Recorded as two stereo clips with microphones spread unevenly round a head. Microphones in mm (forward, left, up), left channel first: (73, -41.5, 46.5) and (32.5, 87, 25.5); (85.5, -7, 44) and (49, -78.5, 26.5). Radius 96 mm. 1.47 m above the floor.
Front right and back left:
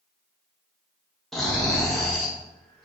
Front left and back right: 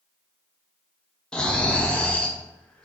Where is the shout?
I don't hear a shout.